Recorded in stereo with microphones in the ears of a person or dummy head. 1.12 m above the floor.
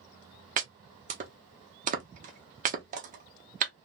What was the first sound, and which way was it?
Chopping, 40° right (ahead or behind).